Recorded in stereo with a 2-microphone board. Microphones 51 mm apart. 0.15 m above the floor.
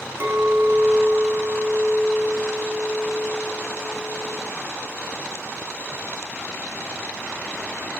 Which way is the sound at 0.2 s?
40° right (ahead or behind).